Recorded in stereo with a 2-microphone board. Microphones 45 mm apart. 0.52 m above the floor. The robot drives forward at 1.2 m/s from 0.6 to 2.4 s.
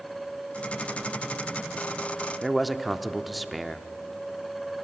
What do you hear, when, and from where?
2.4 s a man speaking: centre (ahead or behind), 0.8 m